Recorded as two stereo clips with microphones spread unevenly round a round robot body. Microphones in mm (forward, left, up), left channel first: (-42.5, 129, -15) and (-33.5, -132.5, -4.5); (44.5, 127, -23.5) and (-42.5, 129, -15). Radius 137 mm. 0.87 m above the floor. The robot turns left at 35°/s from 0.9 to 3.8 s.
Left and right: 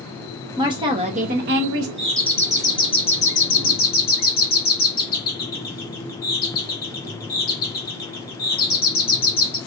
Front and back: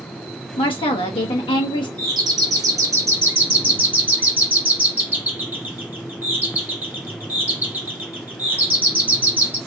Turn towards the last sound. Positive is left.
turn(degrees=115)